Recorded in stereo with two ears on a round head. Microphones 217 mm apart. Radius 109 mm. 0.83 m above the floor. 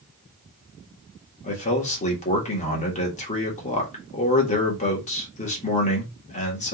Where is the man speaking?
30° left (ahead or behind), 1.8 m.